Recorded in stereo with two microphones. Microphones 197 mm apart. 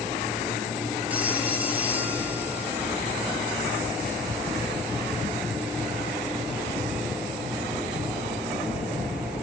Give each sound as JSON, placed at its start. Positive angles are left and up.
{"t": 1.1, "sound": "a phone ringing", "side_deg": -10, "distance_m": 3.0}